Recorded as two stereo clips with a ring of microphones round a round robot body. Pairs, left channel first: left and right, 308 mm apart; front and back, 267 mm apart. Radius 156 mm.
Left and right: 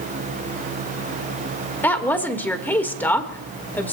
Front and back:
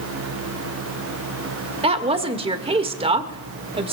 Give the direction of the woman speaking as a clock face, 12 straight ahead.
7 o'clock.